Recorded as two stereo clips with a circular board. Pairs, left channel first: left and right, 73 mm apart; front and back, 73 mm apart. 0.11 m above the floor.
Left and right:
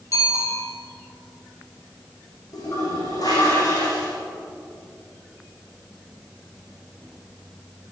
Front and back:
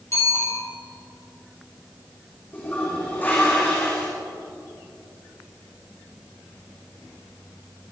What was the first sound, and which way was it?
A bicycle bell, 45° left.